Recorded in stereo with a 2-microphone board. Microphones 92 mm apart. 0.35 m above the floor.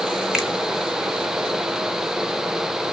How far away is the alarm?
I don't hear an alarm.